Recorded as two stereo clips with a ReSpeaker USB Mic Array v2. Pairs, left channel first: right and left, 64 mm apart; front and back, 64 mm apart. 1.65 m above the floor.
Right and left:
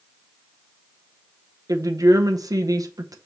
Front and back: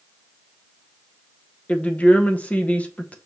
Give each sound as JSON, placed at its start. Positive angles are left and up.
{"t": 1.7, "sound": "a woman speaking", "azimuth_deg": 70, "distance_m": 0.7}